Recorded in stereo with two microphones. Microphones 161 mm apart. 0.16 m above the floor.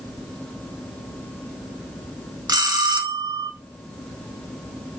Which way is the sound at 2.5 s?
25° right (ahead or behind).